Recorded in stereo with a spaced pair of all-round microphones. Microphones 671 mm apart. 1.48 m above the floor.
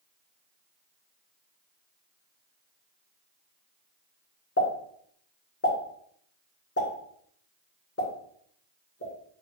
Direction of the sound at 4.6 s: 20° left (ahead or behind).